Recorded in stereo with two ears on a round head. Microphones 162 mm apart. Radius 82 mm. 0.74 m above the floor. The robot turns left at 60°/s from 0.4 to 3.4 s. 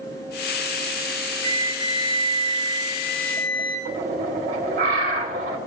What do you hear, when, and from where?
1.4 s a flute: 155° right, 5 m; by 3.8 s 85° left, 5 m
3.9 s a bird: 65° right (ahead or behind), 2.5 m